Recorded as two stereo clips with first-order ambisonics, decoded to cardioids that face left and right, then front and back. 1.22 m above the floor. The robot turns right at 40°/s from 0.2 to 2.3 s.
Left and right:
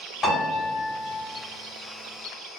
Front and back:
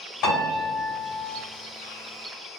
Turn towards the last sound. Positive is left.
turn(degrees=95)